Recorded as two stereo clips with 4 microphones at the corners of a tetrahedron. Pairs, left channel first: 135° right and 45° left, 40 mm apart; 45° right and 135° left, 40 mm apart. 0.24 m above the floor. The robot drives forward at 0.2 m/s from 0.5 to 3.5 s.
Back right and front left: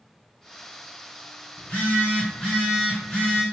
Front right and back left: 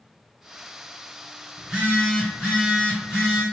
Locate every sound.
1.6 s a phone buzzing: 160° right, 1.6 m; by 3.4 s 165° right, 1.8 m